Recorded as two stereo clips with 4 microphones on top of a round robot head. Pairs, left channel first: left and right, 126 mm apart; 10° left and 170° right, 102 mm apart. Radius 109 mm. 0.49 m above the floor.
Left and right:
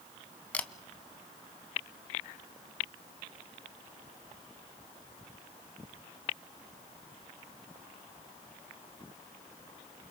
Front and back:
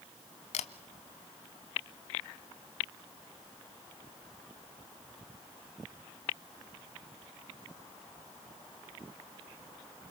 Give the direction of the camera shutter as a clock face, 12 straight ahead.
12 o'clock.